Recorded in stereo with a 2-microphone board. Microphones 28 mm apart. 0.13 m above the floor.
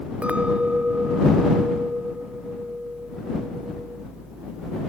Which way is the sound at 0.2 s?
45° right (ahead or behind).